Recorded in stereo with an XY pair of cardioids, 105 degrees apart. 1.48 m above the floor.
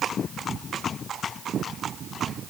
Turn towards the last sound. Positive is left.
No sound to turn to.